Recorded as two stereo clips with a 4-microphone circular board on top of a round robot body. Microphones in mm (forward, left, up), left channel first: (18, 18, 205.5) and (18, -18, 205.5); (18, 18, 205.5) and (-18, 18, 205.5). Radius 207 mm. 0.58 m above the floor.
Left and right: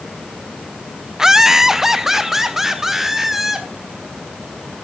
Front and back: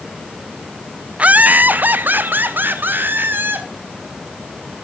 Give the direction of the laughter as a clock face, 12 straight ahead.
5 o'clock.